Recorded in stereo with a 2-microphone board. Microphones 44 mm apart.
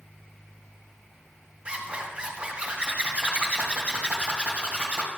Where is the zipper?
25° right (ahead or behind), 1.5 m.